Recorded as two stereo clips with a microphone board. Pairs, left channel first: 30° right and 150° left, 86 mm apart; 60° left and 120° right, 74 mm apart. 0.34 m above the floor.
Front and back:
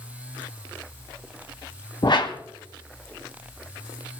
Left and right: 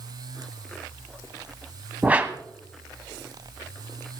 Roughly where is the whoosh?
Ahead right.